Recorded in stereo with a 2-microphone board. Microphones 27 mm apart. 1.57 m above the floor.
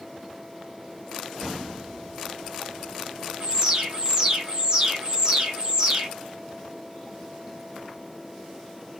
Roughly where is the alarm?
Right.